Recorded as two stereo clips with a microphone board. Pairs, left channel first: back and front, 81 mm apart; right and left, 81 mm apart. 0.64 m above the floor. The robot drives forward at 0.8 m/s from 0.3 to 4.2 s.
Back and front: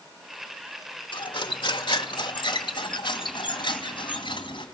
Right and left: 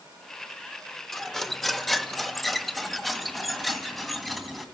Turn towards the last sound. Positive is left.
turn(degrees=180)